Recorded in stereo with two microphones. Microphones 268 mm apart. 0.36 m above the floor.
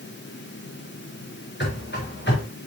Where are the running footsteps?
40° left (ahead or behind), 3 m.